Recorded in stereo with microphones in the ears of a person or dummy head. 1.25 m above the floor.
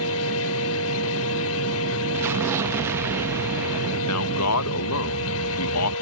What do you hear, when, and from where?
0.0 s a fan: 75° left (ahead or behind)
2.1 s an explosion: 15° right (ahead or behind)
4.0 s a man speaking: 80° left